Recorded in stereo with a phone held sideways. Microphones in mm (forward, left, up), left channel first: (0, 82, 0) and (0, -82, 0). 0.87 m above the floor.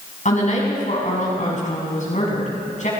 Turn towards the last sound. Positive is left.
turn(degrees=50)  # may be behind; listen again after turning